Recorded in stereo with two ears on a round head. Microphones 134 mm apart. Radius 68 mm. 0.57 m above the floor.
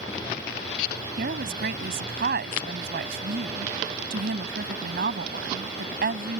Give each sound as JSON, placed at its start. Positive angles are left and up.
{"t": 1.2, "sound": "a woman speaking", "side_deg": -70}